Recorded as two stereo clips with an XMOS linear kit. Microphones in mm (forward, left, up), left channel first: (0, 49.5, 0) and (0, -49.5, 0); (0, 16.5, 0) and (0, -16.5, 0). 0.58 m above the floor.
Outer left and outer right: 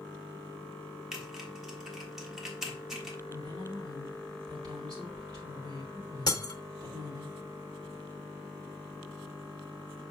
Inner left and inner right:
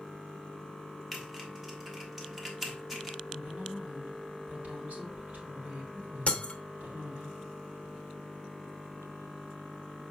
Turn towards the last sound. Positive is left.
turn(degrees=40)  # may be behind; listen again after turning